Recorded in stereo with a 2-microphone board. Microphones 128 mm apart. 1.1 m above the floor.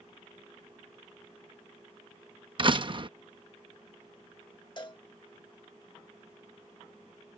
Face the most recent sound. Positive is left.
turn(degrees=35)  # may be behind; listen again after turning